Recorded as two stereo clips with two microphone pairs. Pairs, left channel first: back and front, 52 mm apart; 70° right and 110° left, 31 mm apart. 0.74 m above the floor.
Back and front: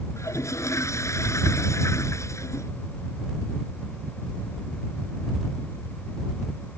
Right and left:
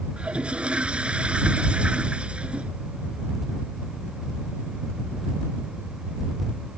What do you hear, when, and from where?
0.2 s a toilet flushing: 165° left